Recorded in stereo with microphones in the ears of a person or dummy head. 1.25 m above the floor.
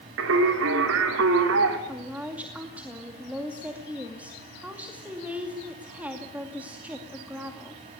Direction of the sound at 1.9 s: 5° right (ahead or behind).